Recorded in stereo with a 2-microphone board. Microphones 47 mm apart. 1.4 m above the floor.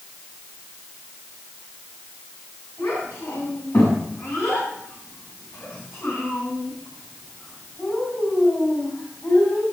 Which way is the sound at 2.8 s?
70° left (ahead or behind).